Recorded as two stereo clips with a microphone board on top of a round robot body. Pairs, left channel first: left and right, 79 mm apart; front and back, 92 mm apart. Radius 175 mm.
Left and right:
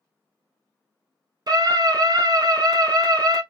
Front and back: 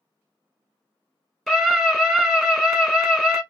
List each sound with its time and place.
1.5 s a scream: 80° right, 1.3 m